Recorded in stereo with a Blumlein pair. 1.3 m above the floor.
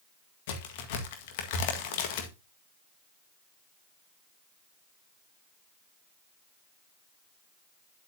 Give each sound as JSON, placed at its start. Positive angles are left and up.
{"t": 0.5, "sound": "a crack", "azimuth_deg": 50, "distance_m": 1.7}